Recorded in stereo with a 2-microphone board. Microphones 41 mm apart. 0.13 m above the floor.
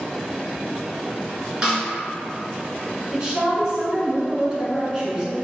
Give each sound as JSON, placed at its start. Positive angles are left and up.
{"t": 1.6, "sound": "a snare drum", "side_deg": -20, "distance_m": 1.6}
{"t": 3.1, "sound": "a woman speaking", "side_deg": -20, "distance_m": 1.2}